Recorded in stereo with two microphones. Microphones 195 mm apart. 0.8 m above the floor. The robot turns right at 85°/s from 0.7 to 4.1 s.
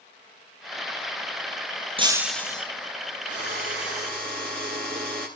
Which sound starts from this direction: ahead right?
Breaking glass, at 2.0 s.